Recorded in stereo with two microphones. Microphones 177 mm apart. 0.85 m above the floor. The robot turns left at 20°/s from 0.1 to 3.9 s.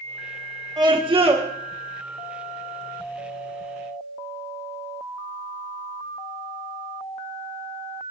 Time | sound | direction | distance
0.8 | a scream | 25° right (ahead or behind) | 1.4 m